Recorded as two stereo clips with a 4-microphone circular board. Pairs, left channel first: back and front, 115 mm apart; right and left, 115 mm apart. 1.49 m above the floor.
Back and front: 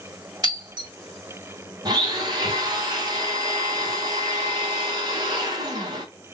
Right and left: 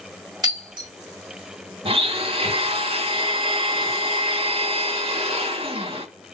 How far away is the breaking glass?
About 1.6 m.